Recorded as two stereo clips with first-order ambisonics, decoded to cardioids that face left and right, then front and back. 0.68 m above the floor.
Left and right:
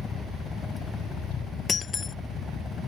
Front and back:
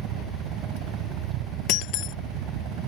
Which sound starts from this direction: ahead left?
Breaking glass, at 1.7 s.